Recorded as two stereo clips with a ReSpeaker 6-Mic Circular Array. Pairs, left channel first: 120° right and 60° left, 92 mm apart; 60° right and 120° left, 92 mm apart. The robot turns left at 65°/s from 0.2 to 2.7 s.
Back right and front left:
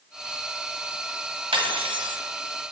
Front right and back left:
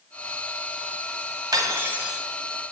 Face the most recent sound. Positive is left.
turn(degrees=0)